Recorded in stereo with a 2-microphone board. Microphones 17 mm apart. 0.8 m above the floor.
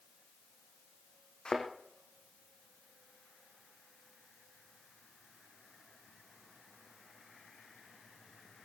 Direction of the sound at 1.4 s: 65° left (ahead or behind).